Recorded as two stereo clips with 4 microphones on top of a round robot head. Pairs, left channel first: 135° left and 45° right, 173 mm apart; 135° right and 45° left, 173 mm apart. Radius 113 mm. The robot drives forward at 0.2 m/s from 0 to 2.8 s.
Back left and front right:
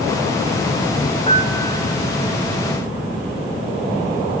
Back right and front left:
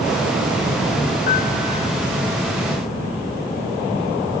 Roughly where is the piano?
Behind.